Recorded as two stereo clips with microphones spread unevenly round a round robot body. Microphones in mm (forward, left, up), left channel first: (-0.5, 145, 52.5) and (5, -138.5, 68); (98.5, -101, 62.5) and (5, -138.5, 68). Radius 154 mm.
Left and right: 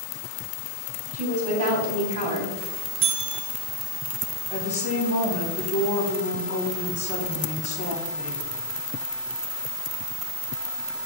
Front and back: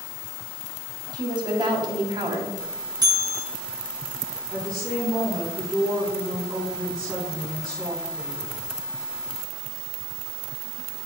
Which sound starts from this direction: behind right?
A woman speaking, at 1.1 s.